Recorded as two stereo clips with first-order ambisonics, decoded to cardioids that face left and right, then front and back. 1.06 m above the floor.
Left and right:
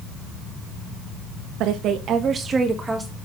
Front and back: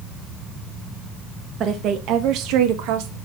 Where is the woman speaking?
125° right, 1.4 m; by 3.2 s straight behind, 1.7 m.